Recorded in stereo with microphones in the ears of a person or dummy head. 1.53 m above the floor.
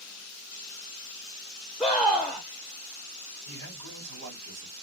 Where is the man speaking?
80° right, 2 m.